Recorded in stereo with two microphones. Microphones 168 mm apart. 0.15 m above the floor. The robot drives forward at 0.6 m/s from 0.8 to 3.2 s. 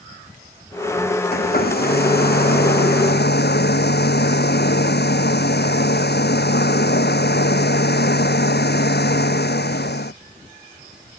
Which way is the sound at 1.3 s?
65° left (ahead or behind).